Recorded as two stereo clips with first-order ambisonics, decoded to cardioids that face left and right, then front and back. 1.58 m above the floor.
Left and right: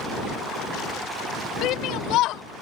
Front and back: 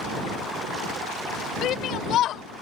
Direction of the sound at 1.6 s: 50° left.